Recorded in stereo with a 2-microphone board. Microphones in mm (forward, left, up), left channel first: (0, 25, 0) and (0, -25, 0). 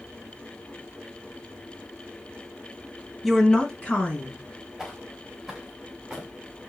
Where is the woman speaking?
5° left (ahead or behind), 1.1 m; by 4.4 s 30° left (ahead or behind), 2.5 m.